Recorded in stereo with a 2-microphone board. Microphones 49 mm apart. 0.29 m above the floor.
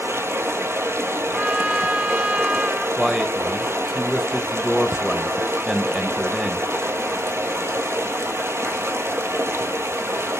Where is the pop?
No pop in this recording.